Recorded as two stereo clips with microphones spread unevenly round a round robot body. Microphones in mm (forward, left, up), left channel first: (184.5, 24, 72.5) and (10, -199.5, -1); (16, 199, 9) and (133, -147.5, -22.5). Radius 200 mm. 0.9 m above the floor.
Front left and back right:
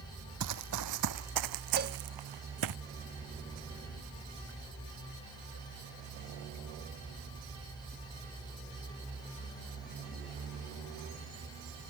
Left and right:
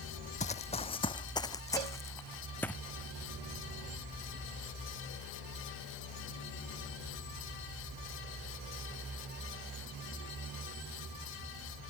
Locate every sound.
0.4 s running footsteps: 175° left; by 2.8 s 165° right
1.8 s a cowbell: 75° right